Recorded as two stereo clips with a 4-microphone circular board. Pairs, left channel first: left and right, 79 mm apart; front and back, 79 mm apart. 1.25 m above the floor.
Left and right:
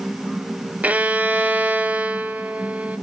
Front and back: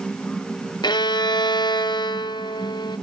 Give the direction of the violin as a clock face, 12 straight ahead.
1 o'clock.